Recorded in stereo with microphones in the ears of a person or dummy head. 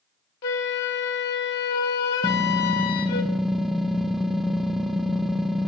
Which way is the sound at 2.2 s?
Centre (ahead or behind).